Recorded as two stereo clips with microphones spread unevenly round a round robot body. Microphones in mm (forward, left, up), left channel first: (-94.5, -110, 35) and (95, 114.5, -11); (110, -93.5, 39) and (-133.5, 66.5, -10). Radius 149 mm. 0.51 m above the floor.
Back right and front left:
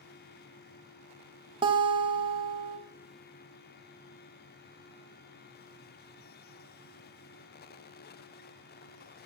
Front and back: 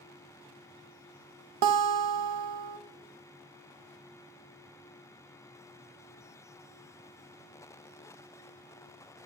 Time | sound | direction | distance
1.6 | a guitar | 125° left | 0.5 m